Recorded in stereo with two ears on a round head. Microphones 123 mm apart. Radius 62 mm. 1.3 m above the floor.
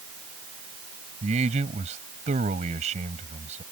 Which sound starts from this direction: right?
A man speaking, at 1.2 s.